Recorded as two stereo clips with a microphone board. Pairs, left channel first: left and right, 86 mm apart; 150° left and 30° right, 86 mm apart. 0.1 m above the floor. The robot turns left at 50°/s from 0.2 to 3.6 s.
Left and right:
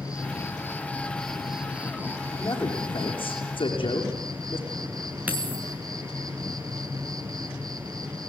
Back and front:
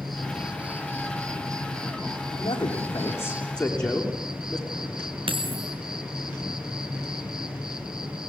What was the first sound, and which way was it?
An insect, 60° left.